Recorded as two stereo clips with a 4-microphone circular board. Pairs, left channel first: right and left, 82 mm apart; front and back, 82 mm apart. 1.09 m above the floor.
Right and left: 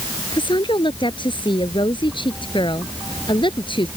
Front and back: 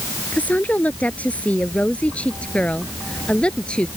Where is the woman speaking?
75° right; by 3.9 s 80° right.